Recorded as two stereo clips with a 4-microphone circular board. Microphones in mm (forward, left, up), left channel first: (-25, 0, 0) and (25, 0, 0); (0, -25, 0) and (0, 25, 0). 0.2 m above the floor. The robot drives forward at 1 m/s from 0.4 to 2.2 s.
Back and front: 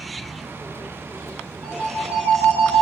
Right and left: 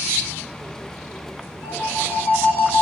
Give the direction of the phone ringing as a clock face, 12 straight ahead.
2 o'clock.